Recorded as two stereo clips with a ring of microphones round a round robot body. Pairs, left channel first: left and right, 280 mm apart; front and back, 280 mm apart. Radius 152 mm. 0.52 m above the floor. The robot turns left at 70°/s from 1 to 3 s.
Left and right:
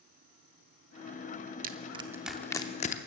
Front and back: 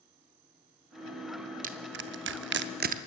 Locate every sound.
1.6 s crushing: 130° right, 0.7 m; by 3.0 s 135° left, 0.7 m